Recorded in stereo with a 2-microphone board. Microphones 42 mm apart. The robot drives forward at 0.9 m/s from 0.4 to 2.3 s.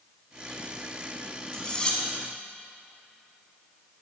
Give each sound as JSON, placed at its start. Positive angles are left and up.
{"t": 1.5, "sound": "cutlery clinking", "side_deg": 20, "distance_m": 1.8}